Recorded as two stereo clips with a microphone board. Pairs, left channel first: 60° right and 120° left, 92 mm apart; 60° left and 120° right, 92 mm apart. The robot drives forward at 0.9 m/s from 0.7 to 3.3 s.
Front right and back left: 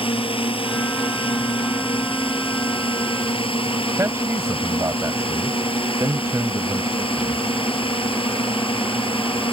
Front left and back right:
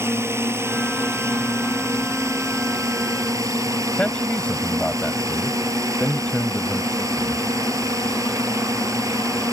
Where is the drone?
60° right; by 9.5 s 65° right.